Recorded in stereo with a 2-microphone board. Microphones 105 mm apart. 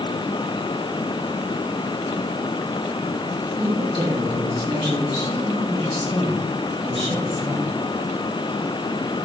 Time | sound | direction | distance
3.6 | a woman speaking | 50° right (ahead or behind) | 3 m